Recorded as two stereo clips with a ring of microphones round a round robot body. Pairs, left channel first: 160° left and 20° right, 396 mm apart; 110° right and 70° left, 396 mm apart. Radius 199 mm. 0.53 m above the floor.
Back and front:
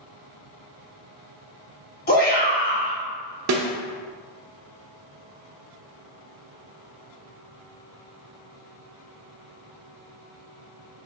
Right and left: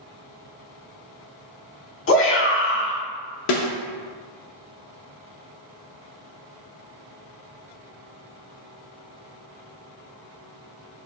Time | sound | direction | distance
2.1 | a shout | 150° right | 1.4 m
3.5 | a snare drum | 70° right | 0.7 m